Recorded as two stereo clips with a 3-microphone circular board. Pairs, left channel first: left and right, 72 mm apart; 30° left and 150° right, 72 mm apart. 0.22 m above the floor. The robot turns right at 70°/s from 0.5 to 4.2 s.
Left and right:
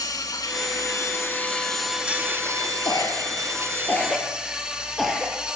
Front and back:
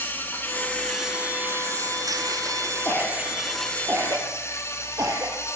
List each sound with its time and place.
0.0 s an insect: 90° left, 2.5 m; by 5.6 s 15° right, 2.5 m
2.9 s a cough: 80° left, 5 m; by 5.3 s 175° left, 5 m